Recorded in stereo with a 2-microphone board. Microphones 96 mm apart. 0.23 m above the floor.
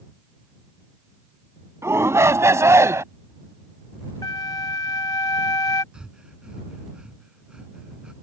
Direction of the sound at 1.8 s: 30° right (ahead or behind).